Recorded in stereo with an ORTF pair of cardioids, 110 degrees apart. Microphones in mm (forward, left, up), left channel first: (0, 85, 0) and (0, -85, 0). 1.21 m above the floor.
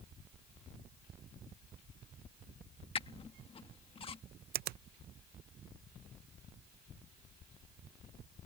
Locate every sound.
3.0 s a squeak: 35° left
4.5 s a finger snap: 65° right